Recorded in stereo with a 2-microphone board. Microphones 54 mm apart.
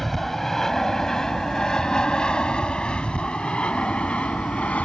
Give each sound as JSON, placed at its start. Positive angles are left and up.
{"t": 0.0, "sound": "an aircraft", "side_deg": 5}